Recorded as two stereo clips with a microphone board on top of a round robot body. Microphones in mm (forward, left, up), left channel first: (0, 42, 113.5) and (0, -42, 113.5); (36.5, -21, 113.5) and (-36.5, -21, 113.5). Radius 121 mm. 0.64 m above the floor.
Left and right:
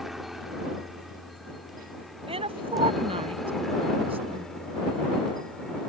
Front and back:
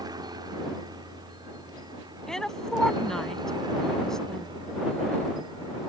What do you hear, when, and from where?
0.0 s a helicopter: 175° right; by 5.9 s 175° left
2.3 s a woman speaking: 85° right